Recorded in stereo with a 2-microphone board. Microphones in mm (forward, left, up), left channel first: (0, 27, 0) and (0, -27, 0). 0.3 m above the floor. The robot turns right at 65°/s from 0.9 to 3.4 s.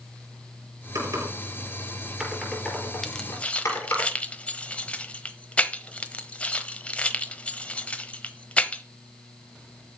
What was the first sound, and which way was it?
Typing on a keyboard, 75° right (ahead or behind).